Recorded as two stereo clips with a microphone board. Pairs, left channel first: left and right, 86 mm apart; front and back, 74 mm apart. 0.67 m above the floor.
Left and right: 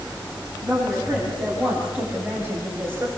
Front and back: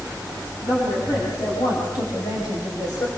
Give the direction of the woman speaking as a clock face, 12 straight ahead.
12 o'clock.